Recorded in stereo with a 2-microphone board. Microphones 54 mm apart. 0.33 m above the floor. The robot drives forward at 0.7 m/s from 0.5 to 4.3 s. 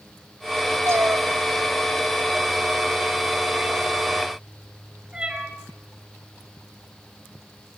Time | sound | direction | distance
0.9 | a cat meowing | 55° right (ahead or behind) | 0.9 m